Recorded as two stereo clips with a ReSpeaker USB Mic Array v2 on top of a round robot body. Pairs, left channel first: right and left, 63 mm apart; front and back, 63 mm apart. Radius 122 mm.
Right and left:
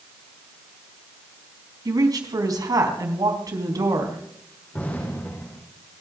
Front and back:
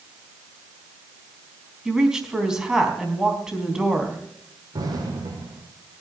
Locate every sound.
1.9 s a woman speaking: 100° left, 4 m
4.7 s an explosion: 155° right, 5 m